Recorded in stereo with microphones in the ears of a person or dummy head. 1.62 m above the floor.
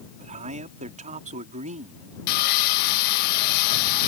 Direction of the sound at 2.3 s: 50° left (ahead or behind).